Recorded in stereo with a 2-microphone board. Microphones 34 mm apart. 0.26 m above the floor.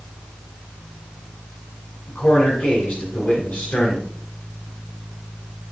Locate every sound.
2.1 s a man speaking: 65° left (ahead or behind), 3 m